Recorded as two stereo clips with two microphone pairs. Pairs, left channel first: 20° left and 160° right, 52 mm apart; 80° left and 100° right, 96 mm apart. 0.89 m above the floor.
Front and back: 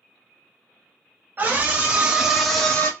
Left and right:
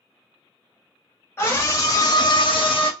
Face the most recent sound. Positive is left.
turn(degrees=75)